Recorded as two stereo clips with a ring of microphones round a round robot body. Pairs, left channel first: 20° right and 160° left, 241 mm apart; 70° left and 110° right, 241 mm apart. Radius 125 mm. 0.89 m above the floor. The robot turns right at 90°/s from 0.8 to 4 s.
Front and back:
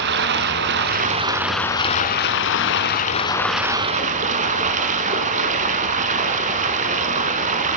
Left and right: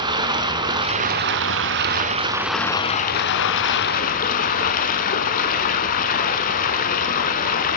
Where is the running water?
Straight behind, 1.0 m; by 7.8 s 110° left, 1.0 m.